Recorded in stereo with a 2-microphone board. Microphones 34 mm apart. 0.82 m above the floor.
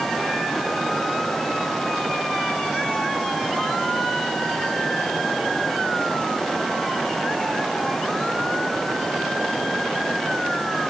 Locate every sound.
Only background noise.